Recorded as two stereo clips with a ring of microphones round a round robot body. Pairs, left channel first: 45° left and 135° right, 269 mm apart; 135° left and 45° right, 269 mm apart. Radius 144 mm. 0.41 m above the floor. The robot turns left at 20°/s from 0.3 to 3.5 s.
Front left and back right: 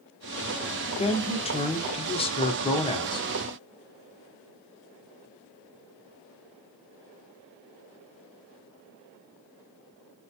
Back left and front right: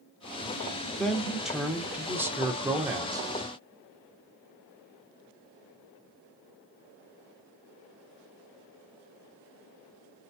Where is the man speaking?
50° left, 0.7 m; by 3.3 s 5° left, 0.7 m.